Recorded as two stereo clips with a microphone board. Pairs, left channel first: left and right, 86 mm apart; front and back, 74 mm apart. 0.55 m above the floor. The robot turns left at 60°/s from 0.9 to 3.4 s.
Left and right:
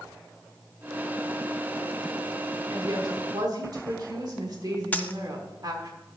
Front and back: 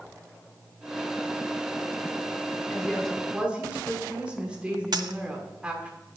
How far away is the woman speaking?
About 1.4 m.